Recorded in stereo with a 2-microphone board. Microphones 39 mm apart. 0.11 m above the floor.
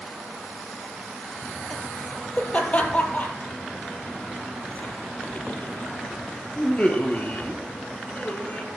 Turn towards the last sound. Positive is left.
turn(degrees=35)  # may be behind; listen again after turning